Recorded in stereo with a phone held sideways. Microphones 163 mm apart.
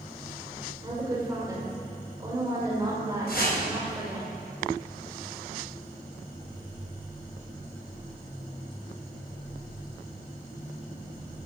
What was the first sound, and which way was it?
A woman speaking, 20° right (ahead or behind).